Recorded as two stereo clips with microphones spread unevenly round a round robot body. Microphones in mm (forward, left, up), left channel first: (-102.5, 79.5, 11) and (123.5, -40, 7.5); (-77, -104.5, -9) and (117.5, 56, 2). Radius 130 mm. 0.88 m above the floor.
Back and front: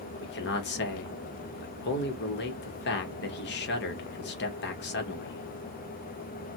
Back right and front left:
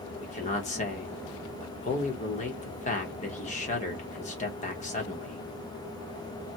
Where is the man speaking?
175° left, 0.8 m.